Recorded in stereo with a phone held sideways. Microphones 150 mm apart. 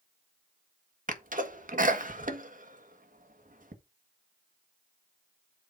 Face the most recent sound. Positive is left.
turn(degrees=-65)  # may be behind; listen again after turning